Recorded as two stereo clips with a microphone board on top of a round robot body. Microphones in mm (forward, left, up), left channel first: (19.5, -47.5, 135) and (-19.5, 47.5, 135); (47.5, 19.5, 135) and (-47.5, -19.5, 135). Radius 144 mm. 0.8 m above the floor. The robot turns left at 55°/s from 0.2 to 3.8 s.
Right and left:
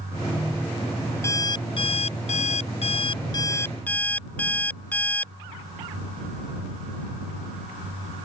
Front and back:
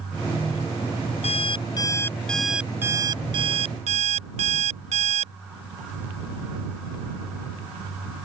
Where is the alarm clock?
Straight ahead; by 5.3 s 145° right.